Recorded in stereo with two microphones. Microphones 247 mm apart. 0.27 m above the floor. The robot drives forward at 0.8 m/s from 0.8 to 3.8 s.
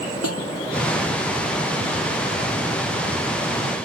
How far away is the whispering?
No whispering in this recording.